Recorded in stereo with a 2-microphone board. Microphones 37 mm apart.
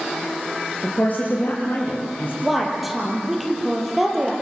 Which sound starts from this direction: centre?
A woman speaking, at 2.4 s.